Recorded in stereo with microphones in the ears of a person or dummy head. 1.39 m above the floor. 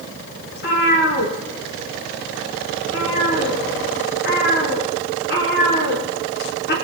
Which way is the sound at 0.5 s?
60° left (ahead or behind).